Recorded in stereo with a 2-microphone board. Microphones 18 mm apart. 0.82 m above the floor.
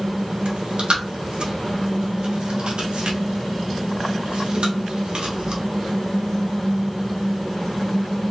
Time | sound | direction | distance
0.5 | chewing | 75° right (ahead or behind) | 1.1 m